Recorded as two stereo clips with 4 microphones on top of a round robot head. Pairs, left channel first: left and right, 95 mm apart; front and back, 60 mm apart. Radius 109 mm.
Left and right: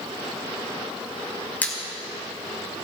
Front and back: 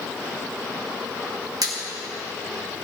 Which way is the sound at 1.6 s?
165° left.